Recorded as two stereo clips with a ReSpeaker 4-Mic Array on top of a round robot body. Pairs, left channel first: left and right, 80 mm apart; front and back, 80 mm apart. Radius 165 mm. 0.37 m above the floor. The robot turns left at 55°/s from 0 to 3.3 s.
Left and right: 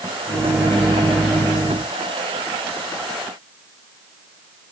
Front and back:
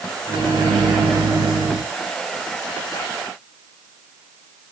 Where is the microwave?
145° right, 4 m; by 1.8 s 130° left, 4 m.